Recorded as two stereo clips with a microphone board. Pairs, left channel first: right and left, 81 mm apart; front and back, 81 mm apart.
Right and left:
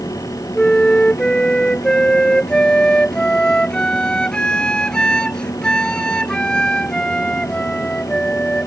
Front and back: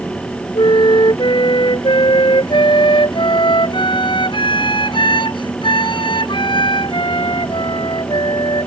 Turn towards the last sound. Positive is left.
turn(degrees=-10)